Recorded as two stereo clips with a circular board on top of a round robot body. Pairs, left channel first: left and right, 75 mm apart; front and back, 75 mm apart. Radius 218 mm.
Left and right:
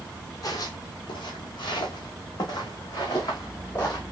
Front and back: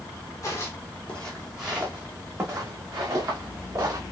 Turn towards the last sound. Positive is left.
turn(degrees=135)